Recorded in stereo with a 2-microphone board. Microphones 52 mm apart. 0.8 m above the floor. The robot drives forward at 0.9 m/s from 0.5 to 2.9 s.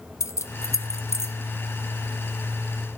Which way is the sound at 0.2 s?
70° left (ahead or behind).